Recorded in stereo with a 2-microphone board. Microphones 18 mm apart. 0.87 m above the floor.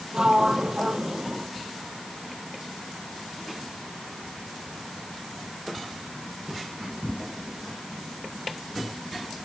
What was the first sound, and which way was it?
A sliding door, 45° right (ahead or behind).